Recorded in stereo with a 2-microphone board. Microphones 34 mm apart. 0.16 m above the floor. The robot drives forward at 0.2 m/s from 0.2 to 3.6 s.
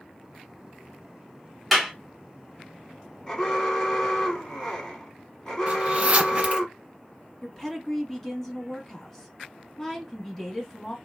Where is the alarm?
20° left (ahead or behind), 1.0 m.